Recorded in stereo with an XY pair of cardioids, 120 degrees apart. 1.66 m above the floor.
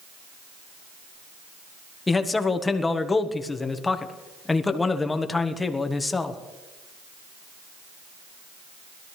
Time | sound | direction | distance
2.1 | a man speaking | 20° left | 1.3 m